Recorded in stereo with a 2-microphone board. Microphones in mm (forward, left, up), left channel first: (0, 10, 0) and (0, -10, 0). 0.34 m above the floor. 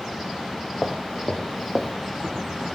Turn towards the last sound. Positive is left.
turn(degrees=-45)  # may be behind; listen again after turning